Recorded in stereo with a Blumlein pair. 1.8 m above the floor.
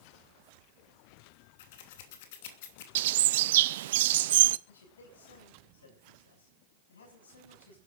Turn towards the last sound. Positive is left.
turn(degrees=65)